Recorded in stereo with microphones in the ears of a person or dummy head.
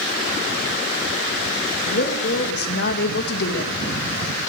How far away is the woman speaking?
About 1.9 m.